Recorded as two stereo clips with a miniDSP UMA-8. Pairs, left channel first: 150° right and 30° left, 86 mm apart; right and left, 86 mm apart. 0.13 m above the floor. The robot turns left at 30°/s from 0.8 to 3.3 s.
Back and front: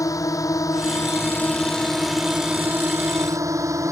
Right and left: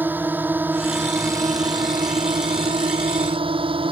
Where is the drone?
160° left; by 3.9 s 85° left.